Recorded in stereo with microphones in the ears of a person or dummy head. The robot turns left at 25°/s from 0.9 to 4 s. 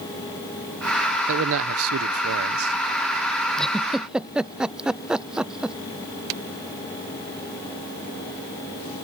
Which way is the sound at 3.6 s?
5° left (ahead or behind).